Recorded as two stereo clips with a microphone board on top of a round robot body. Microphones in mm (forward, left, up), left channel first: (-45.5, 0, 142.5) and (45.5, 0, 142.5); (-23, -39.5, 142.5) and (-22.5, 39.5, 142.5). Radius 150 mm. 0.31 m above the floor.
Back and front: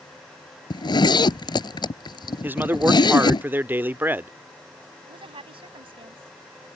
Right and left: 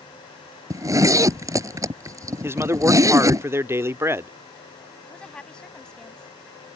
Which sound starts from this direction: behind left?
A zipper, at 0.7 s.